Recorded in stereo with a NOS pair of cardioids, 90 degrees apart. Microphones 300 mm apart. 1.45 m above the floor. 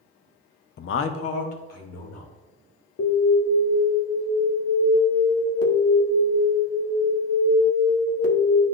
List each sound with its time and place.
0.8 s a man speaking: 35° left, 0.5 m; by 2.3 s 60° left, 2.5 m
3.0 s an alarm: 50° left, 1.4 m